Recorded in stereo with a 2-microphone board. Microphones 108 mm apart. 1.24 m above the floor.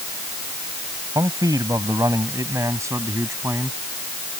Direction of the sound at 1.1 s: 35° right (ahead or behind).